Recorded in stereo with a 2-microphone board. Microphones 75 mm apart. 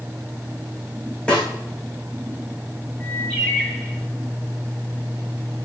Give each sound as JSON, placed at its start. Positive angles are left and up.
{"t": 1.3, "sound": "a snare drum", "side_deg": 15, "distance_m": 6.5}
{"t": 3.0, "sound": "a bird", "side_deg": 15, "distance_m": 7.0}